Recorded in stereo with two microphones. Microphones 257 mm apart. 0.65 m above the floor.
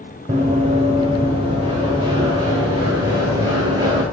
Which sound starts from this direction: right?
Running footsteps, at 0.3 s.